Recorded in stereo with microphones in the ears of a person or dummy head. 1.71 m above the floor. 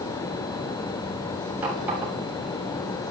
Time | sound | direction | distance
1.6 | a running tap | 5° right (ahead or behind) | 6.5 m